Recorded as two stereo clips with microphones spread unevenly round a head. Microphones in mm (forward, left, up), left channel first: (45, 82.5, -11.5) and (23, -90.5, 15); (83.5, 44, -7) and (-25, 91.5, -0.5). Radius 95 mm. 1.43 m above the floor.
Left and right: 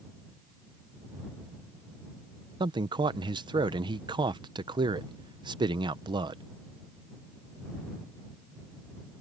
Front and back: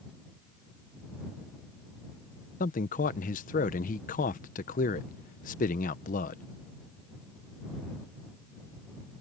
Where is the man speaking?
30° right.